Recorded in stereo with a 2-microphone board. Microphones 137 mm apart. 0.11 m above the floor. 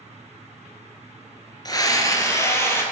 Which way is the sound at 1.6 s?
30° left (ahead or behind).